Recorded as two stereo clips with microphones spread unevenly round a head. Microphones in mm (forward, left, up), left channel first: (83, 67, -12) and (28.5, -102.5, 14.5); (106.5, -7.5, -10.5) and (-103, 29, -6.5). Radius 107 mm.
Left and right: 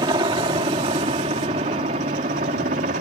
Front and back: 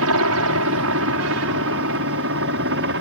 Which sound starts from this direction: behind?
A helicopter, at 0.0 s.